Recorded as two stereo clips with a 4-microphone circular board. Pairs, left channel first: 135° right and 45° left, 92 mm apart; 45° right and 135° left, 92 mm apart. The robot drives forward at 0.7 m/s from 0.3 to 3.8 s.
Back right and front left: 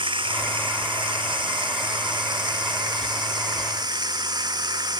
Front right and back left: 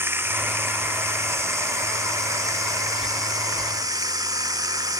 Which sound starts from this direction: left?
Running water, at 0.0 s.